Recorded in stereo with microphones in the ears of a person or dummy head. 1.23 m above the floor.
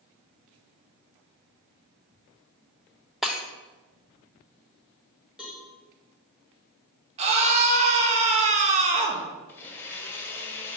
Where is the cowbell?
Centre (ahead or behind), 1.1 m.